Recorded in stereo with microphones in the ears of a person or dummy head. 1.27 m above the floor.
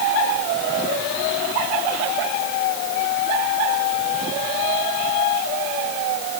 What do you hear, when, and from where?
Only background noise.